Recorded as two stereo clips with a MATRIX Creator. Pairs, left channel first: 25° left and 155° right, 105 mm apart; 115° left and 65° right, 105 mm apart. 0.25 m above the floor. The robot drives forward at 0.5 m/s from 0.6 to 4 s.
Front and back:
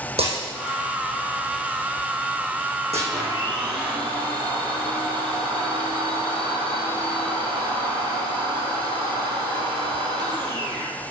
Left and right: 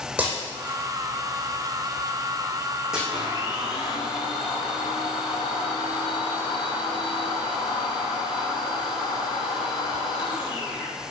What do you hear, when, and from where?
0.2 s breaking glass: 145° right, 5 m; by 3.0 s 150° right, 6 m
3.1 s a blender: 155° left, 3.5 m